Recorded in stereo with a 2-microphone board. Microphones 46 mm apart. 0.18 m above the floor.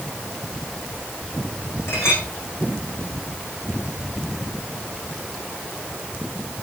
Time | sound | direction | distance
1.9 | a clink | 60° left (ahead or behind) | 7 m